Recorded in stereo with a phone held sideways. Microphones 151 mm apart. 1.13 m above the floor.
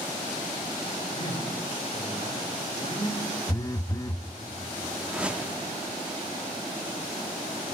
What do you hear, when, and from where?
1.1 s a man speaking: 40° left (ahead or behind), 4 m
3.5 s a phone buzzing: 25° left (ahead or behind), 0.5 m
5.0 s a whoosh: 5° right (ahead or behind), 0.8 m